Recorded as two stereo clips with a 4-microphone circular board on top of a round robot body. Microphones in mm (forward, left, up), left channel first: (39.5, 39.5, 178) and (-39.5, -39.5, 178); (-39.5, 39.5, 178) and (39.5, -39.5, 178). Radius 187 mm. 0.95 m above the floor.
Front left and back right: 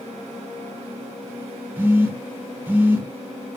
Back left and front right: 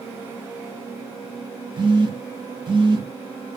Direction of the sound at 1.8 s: 70° right.